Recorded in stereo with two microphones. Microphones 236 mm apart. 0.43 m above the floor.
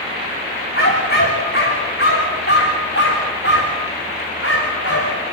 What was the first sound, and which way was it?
A dog barking, 40° left (ahead or behind).